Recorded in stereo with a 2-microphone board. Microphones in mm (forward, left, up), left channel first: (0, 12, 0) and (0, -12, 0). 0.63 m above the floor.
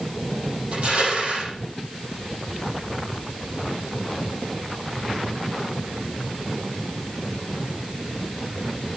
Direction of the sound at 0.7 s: 45° right (ahead or behind).